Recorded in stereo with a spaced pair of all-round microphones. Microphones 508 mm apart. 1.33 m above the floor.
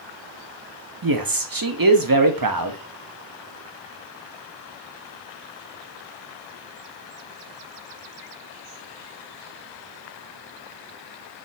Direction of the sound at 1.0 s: 45° right (ahead or behind).